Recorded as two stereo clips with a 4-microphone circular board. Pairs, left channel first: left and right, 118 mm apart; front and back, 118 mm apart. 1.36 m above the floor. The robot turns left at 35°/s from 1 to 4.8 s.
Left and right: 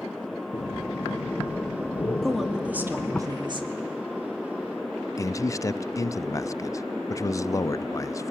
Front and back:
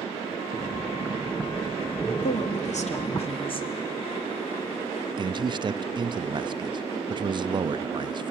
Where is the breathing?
90° left, 1.1 m; by 3.2 s 10° left, 1.1 m.